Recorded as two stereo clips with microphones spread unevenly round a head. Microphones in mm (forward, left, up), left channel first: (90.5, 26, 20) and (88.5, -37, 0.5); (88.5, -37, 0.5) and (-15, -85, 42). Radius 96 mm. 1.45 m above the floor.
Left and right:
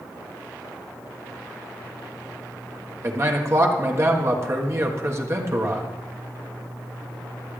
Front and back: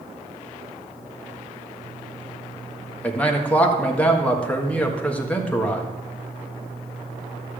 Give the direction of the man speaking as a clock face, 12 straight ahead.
2 o'clock.